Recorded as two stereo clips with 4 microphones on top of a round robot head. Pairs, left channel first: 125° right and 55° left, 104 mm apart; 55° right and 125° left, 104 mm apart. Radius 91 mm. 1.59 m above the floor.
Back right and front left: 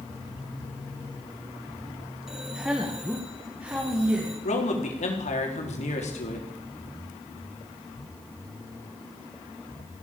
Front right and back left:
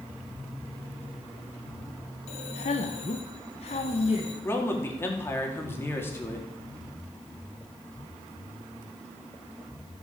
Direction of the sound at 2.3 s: 30° right.